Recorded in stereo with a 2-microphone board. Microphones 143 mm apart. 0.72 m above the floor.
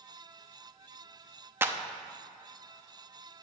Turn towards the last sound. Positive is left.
turn(degrees=-15)  # may be behind; listen again after turning